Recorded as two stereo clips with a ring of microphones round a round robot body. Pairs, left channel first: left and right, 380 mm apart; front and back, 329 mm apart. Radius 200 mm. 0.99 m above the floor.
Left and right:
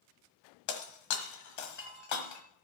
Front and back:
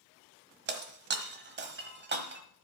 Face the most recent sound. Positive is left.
turn(degrees=130)